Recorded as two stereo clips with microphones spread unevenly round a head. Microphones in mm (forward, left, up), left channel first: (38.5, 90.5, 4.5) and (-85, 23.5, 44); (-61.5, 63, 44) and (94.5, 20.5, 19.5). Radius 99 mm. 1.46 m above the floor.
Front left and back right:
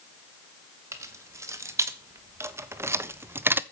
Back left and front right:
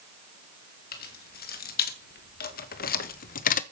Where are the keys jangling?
140° left, 2 m; by 3.6 s 145° left, 0.7 m.